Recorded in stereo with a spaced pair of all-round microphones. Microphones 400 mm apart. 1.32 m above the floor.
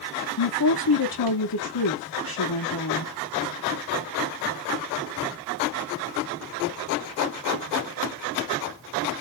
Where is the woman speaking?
60° left (ahead or behind), 0.9 m.